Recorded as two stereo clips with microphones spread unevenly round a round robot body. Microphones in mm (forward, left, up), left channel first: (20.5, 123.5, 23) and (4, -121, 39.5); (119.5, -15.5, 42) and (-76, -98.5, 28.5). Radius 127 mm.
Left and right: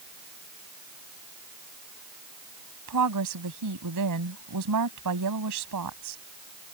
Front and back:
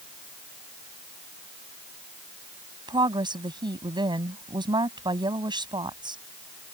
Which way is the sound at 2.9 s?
85° right.